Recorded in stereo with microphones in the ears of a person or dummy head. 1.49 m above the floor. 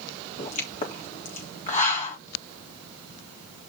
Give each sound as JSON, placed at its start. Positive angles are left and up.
{"t": 0.4, "sound": "a pop", "side_deg": 40, "distance_m": 3.5}